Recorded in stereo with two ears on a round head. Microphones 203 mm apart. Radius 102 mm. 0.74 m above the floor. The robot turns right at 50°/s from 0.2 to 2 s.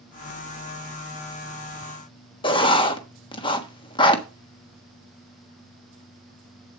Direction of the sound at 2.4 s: 20° left (ahead or behind).